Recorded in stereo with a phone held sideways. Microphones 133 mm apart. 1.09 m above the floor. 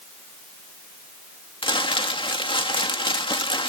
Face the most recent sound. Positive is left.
turn(degrees=40)  # may be behind; listen again after turning